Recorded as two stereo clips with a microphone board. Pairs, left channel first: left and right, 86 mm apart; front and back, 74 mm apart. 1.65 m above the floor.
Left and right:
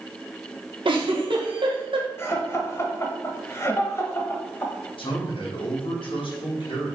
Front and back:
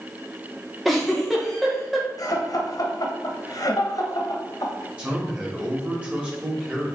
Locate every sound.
0.8 s a giggle: 90° right, 1.3 m
2.2 s laughter: 30° left, 1.4 m
5.0 s a man speaking: 105° left, 2.5 m